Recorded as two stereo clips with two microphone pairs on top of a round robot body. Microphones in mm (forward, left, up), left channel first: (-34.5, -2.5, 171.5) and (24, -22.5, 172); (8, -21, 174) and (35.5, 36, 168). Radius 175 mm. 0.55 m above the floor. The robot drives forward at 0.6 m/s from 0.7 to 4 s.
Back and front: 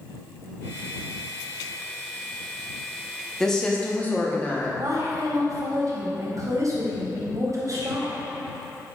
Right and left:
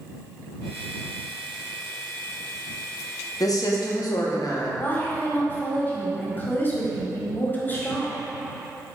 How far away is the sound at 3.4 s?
About 1.2 m.